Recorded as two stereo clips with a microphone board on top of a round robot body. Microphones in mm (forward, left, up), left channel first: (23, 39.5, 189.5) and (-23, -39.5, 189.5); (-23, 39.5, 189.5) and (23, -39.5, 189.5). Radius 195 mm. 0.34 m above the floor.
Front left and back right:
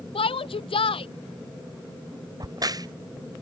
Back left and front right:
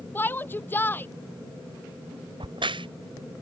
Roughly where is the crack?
Right.